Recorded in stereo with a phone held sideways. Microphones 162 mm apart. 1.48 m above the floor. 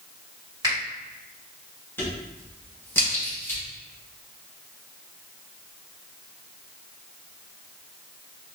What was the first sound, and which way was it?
A finger snap, 25° right (ahead or behind).